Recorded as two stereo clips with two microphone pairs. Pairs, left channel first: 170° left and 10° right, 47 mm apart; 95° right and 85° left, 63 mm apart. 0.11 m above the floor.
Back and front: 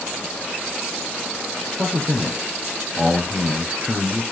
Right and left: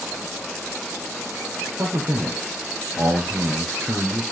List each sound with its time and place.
1.8 s a man speaking: 35° left, 1.8 m